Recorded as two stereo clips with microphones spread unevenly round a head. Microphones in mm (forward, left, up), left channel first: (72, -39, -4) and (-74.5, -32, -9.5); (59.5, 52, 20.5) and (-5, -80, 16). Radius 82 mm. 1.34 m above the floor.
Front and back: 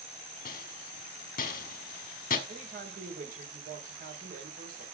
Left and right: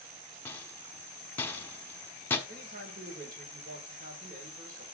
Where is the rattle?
10° right, 1.4 m.